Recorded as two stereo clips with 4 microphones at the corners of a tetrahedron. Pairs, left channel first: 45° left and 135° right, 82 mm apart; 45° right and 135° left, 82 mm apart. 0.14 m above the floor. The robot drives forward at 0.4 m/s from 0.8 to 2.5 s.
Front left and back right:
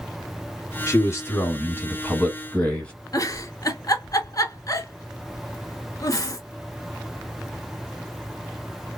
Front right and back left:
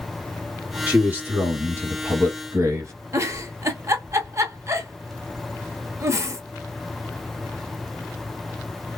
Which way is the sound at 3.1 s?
85° left.